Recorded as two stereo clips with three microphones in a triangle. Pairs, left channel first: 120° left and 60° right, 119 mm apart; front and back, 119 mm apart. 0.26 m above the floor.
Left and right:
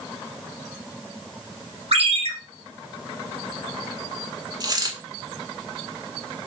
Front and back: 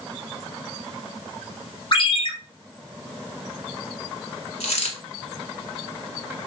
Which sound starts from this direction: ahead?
A dropped coin, at 4.6 s.